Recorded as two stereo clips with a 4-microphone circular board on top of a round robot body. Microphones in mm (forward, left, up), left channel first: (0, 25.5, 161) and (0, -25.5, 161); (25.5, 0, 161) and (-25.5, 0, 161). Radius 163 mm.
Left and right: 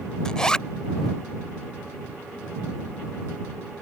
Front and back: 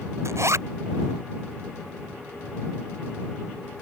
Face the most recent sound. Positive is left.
turn(degrees=165)